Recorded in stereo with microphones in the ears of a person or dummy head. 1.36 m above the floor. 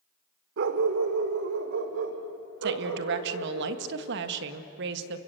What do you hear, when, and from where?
0.6 s a dog barking: 55° right (ahead or behind), 1.6 m; by 3.6 s 65° right (ahead or behind), 3 m
2.6 s a woman speaking: 65° right (ahead or behind), 1.8 m